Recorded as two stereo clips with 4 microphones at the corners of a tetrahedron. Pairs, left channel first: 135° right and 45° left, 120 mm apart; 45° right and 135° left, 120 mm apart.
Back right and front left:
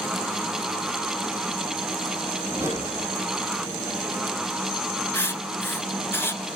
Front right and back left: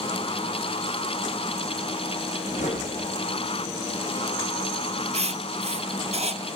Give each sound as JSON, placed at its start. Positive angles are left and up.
{"t": 2.5, "sound": "a whoosh", "azimuth_deg": -30, "distance_m": 6.5}
{"t": 5.1, "sound": "writing", "azimuth_deg": 155, "distance_m": 0.9}